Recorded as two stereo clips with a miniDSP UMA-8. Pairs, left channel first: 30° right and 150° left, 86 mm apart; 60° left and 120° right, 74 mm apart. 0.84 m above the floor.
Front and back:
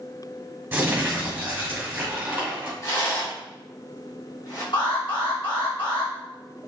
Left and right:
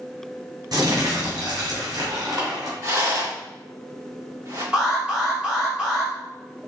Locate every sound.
0.7 s crumpling: 140° right, 2.5 m
2.8 s a rattle: 80° right, 2.5 m
4.7 s an alarm: 45° right, 1.9 m